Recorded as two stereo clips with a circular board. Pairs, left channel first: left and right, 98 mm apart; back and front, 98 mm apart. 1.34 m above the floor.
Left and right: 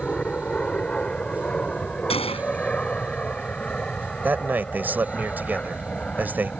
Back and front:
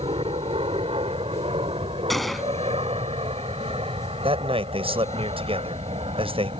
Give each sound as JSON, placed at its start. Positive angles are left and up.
{"t": 0.0, "sound": "an aircraft", "azimuth_deg": 10}
{"t": 2.1, "sound": "a gunshot", "azimuth_deg": 90}
{"t": 4.2, "sound": "a man speaking", "azimuth_deg": -20}